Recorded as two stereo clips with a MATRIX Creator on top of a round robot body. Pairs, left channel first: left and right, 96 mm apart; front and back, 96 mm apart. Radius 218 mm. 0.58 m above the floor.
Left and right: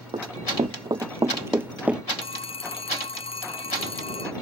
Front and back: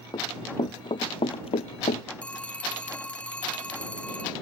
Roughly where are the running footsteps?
Ahead right.